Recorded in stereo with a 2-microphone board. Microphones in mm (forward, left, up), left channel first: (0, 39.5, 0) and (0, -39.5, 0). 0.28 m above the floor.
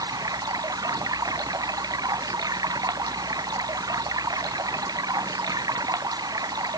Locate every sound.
0.0 s running water: 55° right (ahead or behind)